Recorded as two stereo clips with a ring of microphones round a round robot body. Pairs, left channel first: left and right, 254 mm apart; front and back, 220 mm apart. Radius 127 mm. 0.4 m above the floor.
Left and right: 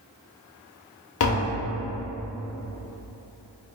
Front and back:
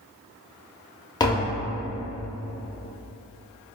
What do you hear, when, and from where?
1.2 s tapping: 70° left, 0.6 m